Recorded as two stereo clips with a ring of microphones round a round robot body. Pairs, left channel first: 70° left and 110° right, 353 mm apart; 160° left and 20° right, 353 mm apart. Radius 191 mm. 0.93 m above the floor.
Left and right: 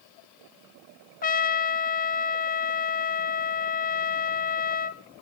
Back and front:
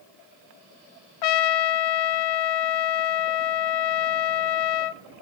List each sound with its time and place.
1.2 s a trumpet: 135° left, 0.8 m